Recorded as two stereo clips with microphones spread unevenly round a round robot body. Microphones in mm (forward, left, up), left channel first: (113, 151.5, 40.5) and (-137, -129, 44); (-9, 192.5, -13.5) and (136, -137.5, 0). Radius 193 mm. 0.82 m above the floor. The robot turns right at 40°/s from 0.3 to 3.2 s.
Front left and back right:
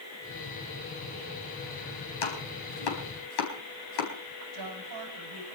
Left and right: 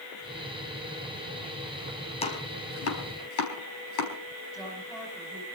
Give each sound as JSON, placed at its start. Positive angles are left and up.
{"t": 2.2, "sound": "chopping", "azimuth_deg": 40, "distance_m": 4.5}
{"t": 4.5, "sound": "a woman speaking", "azimuth_deg": -165, "distance_m": 5.0}